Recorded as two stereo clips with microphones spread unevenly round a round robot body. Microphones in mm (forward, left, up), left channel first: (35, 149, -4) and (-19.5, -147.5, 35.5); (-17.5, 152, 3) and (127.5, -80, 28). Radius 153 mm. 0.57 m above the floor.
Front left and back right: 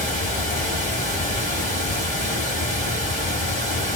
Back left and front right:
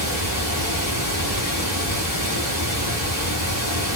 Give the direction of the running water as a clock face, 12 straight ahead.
7 o'clock.